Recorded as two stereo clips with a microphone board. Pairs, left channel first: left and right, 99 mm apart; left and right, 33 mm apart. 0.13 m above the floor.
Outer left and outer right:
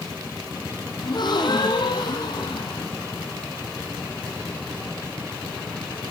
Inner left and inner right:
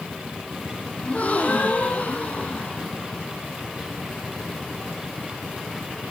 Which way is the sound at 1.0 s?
50° left (ahead or behind).